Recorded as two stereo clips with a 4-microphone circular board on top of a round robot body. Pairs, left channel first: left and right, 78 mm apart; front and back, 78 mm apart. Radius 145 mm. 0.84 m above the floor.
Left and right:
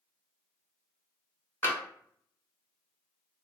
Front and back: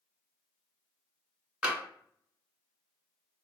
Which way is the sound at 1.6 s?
115° left.